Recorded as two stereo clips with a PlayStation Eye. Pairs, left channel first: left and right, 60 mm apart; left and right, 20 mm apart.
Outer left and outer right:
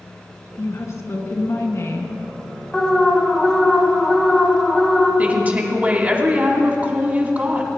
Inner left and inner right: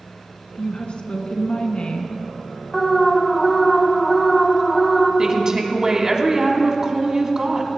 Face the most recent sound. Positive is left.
turn(degrees=-30)  # may be behind; listen again after turning